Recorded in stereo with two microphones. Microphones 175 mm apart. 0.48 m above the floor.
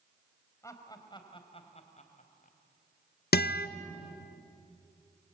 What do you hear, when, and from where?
0.6 s laughter: 15° left (ahead or behind), 3 m; by 2.6 s 50° left (ahead or behind), 3 m
3.3 s a guitar: 65° left (ahead or behind), 0.7 m